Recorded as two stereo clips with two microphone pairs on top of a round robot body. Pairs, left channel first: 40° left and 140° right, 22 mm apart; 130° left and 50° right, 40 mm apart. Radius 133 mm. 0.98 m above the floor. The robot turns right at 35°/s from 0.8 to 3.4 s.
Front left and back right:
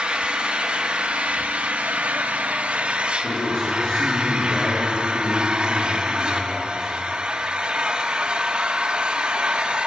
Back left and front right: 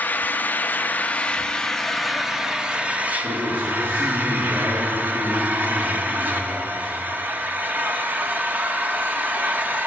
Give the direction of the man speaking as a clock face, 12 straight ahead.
12 o'clock.